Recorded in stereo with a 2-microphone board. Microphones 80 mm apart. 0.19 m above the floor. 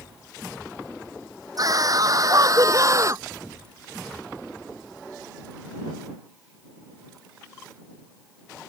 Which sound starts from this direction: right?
A scream, at 1.6 s.